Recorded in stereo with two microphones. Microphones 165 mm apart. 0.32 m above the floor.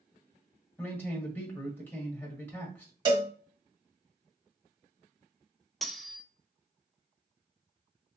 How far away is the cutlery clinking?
About 0.7 m.